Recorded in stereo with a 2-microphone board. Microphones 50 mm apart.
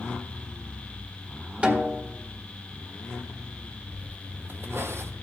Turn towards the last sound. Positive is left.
turn(degrees=-55)  # may be behind; listen again after turning